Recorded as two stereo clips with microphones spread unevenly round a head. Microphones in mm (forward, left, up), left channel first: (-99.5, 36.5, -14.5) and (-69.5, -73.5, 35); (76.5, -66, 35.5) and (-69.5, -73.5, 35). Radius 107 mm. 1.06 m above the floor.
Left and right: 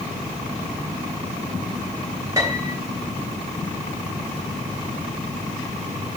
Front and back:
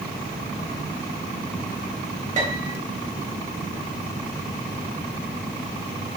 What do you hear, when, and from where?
2.4 s a piano: 145° right, 3 m